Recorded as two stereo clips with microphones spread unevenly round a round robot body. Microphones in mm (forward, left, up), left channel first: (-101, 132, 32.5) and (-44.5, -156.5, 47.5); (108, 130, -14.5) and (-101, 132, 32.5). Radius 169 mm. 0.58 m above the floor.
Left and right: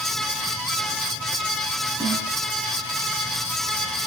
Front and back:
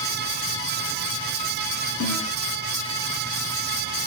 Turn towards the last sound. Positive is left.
turn(degrees=10)